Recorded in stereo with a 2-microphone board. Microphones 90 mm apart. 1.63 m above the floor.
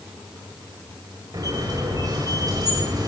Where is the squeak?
40° right (ahead or behind), 6 m.